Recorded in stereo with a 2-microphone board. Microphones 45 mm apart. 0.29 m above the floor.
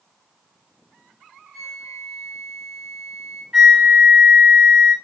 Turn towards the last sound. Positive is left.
turn(degrees=-15)  # may be behind; listen again after turning